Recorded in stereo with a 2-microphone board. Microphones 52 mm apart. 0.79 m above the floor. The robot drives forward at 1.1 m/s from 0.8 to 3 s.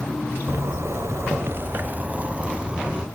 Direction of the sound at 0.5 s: 60° right (ahead or behind).